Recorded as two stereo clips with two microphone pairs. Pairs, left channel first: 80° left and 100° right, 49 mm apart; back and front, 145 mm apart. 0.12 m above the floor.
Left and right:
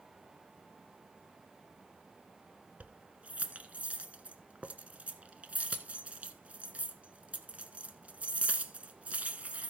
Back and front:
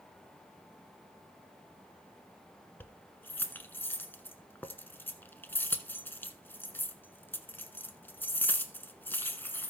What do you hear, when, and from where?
2.8 s keys jangling: 120° right, 1.1 m